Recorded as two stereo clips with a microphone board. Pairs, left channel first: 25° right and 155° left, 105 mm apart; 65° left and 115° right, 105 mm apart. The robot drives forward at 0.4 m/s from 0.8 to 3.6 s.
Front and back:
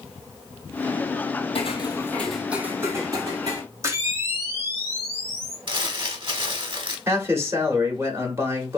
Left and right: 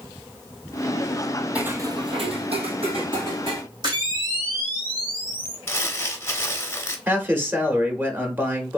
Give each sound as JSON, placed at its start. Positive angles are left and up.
{"t": 1.6, "sound": "footsteps", "azimuth_deg": -35, "distance_m": 0.9}
{"t": 3.8, "sound": "a camera shutter", "azimuth_deg": -145, "distance_m": 1.1}
{"t": 5.7, "sound": "crumpling", "azimuth_deg": 130, "distance_m": 0.7}
{"t": 7.1, "sound": "a man speaking", "azimuth_deg": -165, "distance_m": 0.9}